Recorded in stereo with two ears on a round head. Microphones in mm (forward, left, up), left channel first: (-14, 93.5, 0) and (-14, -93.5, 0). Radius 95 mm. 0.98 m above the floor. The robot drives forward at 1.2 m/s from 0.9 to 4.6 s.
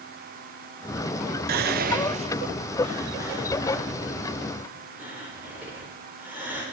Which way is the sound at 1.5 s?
45° right (ahead or behind).